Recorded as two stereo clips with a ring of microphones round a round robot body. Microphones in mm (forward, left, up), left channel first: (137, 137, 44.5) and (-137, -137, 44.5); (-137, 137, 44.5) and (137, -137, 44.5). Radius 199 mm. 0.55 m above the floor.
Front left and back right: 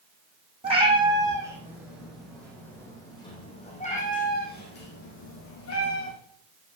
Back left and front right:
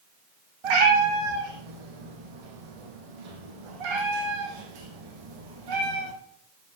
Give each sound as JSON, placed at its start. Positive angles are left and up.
{"t": 0.6, "sound": "a cat meowing", "azimuth_deg": -60, "distance_m": 3.5}